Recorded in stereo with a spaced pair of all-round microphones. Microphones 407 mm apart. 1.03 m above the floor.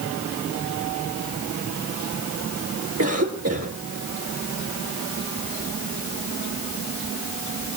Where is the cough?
35° right (ahead or behind), 2.5 m.